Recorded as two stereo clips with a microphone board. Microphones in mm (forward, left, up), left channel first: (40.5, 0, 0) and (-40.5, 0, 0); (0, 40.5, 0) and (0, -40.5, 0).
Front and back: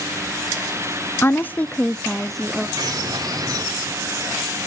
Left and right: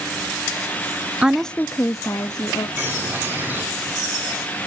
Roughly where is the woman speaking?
Ahead right.